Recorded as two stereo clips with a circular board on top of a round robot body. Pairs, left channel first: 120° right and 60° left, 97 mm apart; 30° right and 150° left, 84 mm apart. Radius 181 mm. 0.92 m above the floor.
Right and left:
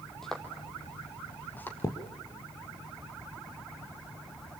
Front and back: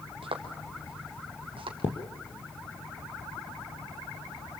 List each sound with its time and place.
0.2 s footsteps: 150° left, 2 m; by 1.7 s 165° left, 3 m
1.8 s a thud: 65° right, 3.5 m